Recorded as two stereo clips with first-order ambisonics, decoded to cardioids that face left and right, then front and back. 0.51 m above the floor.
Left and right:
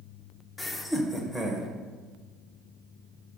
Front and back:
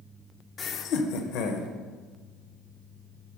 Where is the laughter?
30° left, 0.7 m; by 1.7 s 5° left, 1.9 m.